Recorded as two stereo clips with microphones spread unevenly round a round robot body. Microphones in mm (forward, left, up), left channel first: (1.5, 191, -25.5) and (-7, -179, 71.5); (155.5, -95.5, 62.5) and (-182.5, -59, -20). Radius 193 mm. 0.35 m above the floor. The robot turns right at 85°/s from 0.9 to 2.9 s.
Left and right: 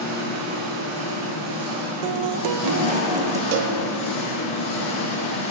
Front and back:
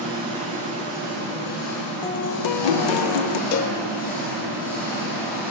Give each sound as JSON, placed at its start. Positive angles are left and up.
{"t": 0.0, "sound": "an engine running", "azimuth_deg": -115, "distance_m": 3.5}
{"t": 2.0, "sound": "a guitar", "azimuth_deg": -90, "distance_m": 0.5}
{"t": 3.5, "sound": "a cowbell", "azimuth_deg": -50, "distance_m": 0.5}